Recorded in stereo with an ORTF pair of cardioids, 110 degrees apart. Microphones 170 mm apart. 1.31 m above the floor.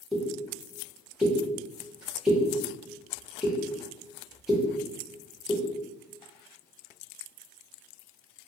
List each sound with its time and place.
0.1 s a pop: 5° right, 1.1 m